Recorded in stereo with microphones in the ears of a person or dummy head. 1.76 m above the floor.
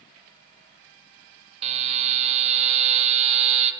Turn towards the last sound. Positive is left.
turn(degrees=-35)  # may be behind; listen again after turning